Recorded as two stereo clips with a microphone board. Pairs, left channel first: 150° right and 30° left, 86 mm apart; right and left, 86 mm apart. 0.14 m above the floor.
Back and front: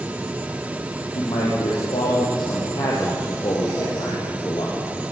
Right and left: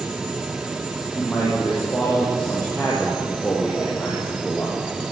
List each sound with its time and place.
1.1 s a man speaking: 170° right, 7 m; by 4.8 s 175° right, 5.5 m